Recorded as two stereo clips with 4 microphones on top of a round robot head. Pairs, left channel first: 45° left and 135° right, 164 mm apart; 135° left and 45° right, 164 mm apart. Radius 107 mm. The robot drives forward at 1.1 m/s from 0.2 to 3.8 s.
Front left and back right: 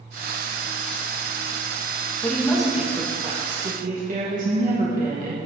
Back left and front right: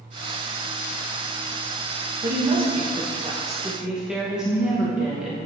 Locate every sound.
2.2 s a woman speaking: 35° right, 1.5 m; by 5.4 s 130° right, 1.1 m